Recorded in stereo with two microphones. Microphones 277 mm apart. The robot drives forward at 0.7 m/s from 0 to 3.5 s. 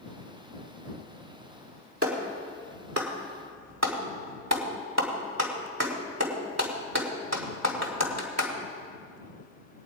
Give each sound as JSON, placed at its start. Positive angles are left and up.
{"t": 2.0, "sound": "a clap", "side_deg": -55, "distance_m": 2.0}